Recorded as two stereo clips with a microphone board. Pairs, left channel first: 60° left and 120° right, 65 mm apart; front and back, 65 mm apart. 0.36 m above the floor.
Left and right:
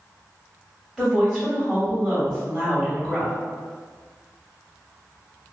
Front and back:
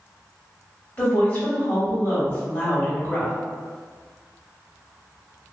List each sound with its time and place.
1.0 s a woman speaking: 20° right, 1.4 m